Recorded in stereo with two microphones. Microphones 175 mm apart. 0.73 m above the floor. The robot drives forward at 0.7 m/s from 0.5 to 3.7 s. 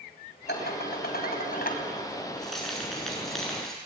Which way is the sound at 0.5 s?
75° left (ahead or behind).